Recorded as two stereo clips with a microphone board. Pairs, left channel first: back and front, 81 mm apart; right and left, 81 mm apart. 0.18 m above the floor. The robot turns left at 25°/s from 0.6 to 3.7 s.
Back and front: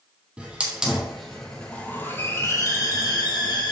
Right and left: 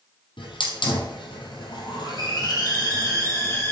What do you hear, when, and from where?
0.4 s a hiss: 80° right, 2.5 m; by 3.7 s 155° right, 2.5 m